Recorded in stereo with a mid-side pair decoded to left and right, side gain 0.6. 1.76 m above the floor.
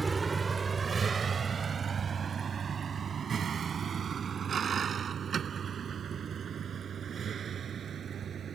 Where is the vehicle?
20° right; by 8.6 s 40° right.